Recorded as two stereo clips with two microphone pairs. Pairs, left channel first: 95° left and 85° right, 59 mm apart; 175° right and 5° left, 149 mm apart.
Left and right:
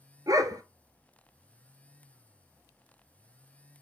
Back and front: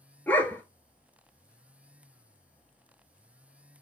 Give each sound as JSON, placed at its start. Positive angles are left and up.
{"t": 0.3, "sound": "a dog barking", "azimuth_deg": -100, "distance_m": 1.3}